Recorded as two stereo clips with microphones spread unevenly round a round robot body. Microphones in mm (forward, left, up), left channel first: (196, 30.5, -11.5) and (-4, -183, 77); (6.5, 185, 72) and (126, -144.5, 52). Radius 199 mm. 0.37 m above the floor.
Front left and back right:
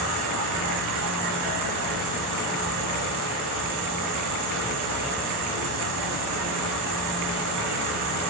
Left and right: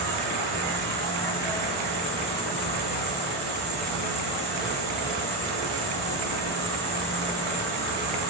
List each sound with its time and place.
0.0 s an insect: 165° right, 3.5 m